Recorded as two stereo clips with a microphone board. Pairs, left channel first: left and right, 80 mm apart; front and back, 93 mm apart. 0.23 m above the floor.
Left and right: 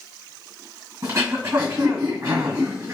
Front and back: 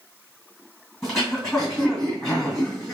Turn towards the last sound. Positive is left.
turn(degrees=-85)